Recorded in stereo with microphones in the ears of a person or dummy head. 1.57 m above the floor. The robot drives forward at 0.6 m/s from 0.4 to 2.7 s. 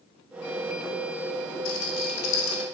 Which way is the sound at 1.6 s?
80° left.